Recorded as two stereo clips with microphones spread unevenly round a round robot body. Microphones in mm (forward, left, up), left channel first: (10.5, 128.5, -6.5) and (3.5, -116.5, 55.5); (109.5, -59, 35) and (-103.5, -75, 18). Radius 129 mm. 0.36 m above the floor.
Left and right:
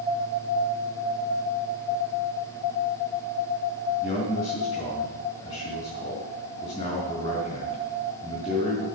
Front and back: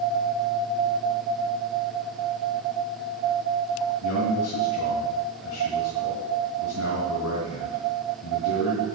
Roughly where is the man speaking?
Ahead.